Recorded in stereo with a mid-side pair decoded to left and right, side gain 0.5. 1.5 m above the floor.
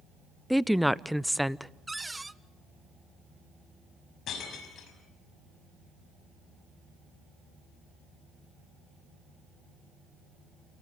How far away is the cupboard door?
About 0.7 m.